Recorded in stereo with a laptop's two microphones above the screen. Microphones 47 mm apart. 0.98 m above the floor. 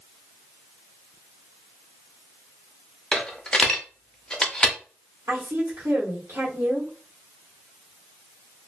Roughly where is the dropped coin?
Centre.